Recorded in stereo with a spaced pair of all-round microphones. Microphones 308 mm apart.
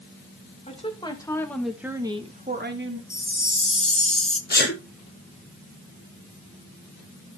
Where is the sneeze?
30° left (ahead or behind), 0.9 m.